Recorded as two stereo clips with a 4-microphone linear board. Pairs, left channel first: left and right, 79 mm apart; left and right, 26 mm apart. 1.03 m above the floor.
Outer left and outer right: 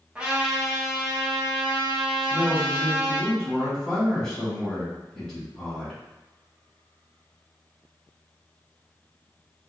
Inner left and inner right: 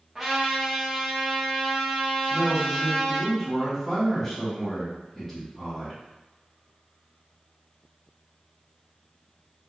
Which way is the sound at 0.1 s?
15° right (ahead or behind).